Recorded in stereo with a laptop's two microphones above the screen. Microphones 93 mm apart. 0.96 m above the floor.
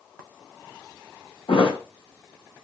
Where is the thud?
65° left (ahead or behind), 1.2 m.